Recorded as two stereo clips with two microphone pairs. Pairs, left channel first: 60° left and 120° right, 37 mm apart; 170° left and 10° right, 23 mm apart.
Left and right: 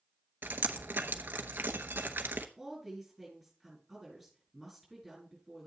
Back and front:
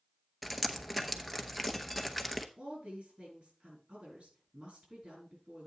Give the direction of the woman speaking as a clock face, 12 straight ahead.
1 o'clock.